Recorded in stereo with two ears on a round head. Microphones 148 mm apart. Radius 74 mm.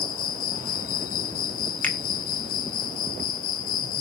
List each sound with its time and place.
0.0 s an insect: 55° left (ahead or behind), 0.7 m
1.8 s a finger snap: 10° left (ahead or behind), 1.2 m